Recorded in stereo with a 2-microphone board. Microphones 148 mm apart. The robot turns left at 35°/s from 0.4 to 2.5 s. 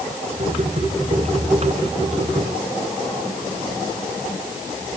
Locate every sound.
Only background noise.